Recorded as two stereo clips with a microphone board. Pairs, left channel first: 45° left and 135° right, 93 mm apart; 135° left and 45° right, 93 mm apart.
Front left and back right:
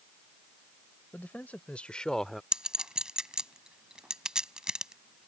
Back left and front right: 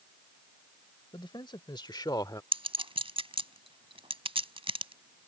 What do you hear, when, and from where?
1.1 s a man speaking: 115° left; by 2.4 s 135° left
2.5 s a clink: 50° right